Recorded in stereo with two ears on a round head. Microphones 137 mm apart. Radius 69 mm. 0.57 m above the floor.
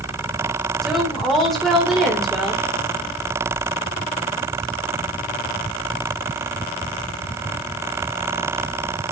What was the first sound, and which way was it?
A woman speaking, centre (ahead or behind).